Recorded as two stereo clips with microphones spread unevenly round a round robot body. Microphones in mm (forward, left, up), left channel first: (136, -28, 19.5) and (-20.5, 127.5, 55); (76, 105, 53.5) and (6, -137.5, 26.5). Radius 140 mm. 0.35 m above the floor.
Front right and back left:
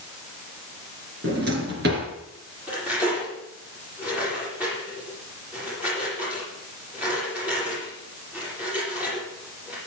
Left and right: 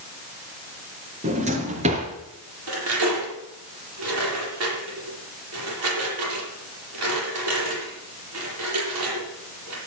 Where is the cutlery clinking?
140° right, 8 m.